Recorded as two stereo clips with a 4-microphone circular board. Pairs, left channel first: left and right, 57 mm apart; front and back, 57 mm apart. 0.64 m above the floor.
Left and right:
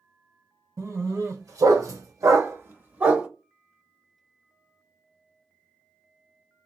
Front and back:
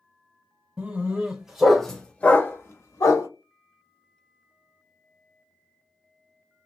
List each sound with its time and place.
0.8 s a dog barking: 115° right, 1.3 m; by 3.3 s 15° right, 0.9 m